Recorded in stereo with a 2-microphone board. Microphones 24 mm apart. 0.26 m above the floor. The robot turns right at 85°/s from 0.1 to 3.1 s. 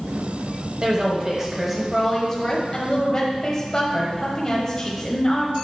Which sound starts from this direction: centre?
A woman speaking, at 0.8 s.